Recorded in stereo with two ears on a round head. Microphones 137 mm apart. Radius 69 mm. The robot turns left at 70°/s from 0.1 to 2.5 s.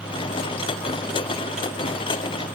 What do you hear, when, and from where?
Only background noise.